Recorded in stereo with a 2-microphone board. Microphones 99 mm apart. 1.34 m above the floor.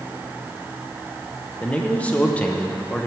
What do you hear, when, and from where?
1.6 s a man speaking: 15° left (ahead or behind), 0.8 m